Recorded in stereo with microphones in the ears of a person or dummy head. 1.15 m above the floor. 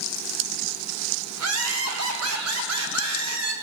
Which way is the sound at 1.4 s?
85° right.